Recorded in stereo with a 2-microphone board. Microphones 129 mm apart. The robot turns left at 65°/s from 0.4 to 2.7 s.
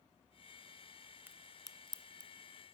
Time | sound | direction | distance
1.3 | a crack | 15° right (ahead or behind) | 0.6 m